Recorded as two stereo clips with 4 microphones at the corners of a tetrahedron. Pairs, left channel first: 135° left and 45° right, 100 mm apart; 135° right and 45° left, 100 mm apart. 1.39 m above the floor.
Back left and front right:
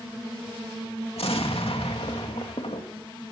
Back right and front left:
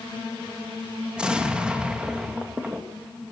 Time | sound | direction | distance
1.2 | an explosion | 125° left | 2.5 m